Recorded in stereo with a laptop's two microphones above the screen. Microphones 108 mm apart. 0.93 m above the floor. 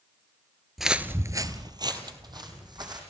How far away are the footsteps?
About 1.0 m.